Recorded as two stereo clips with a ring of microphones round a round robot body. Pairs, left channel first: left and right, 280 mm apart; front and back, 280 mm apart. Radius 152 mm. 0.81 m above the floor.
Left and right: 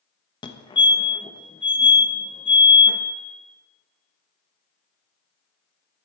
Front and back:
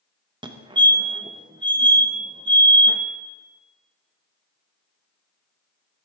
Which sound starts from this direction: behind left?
A fire alarm, at 0.4 s.